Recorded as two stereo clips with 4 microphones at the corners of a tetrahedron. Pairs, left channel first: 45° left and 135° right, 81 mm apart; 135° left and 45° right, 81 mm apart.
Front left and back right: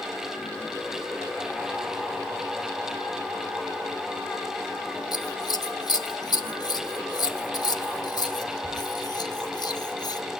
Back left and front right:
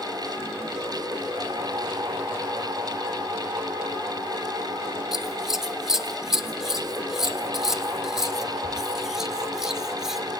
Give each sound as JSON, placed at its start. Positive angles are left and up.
{"t": 5.1, "sound": "scissors", "azimuth_deg": 40, "distance_m": 0.9}